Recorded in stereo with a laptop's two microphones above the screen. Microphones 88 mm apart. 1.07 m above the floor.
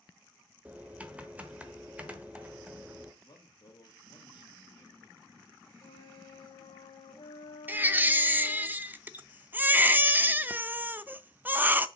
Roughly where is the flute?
Left.